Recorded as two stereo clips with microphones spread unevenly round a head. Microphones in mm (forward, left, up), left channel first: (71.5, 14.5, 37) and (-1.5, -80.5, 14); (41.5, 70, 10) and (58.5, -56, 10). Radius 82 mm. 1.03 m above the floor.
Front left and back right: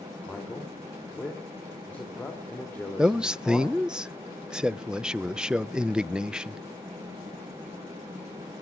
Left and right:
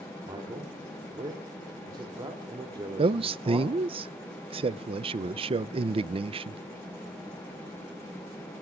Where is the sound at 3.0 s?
55° right, 0.5 m.